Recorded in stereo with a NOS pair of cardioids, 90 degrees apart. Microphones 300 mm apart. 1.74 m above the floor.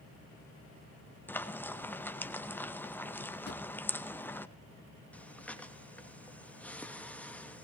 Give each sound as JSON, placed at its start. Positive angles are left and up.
{"t": 1.3, "sound": "frying", "azimuth_deg": 5, "distance_m": 1.7}
{"t": 3.5, "sound": "a drawer", "azimuth_deg": 35, "distance_m": 3.0}
{"t": 5.1, "sound": "breathing", "azimuth_deg": 5, "distance_m": 2.5}